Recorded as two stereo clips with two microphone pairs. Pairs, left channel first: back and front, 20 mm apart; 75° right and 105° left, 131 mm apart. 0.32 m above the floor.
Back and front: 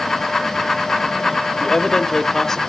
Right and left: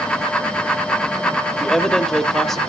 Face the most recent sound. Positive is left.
turn(degrees=-160)